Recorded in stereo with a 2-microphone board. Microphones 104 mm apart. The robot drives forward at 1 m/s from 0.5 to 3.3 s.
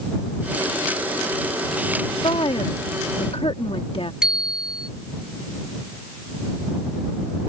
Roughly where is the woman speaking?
Left.